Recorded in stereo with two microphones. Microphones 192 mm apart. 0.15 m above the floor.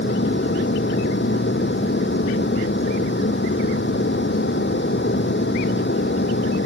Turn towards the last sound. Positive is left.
turn(degrees=75)  # may be behind; listen again after turning